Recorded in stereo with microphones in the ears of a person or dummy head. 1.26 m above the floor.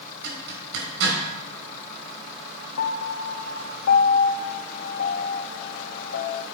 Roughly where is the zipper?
Right.